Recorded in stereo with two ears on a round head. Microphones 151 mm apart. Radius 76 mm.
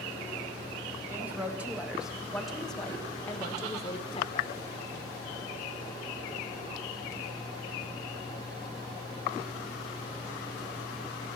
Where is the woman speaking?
10° right (ahead or behind), 4 m; by 4.6 s 40° left (ahead or behind), 2 m.